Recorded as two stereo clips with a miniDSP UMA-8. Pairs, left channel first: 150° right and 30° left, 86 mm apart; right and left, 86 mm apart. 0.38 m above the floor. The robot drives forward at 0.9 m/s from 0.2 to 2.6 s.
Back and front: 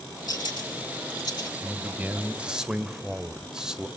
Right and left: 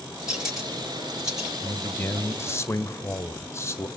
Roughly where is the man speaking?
Ahead right.